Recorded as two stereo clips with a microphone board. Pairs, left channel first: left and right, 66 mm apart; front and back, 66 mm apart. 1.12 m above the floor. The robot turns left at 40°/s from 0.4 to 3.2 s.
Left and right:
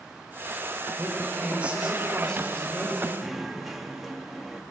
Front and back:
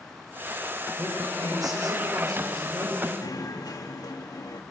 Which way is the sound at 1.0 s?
135° right.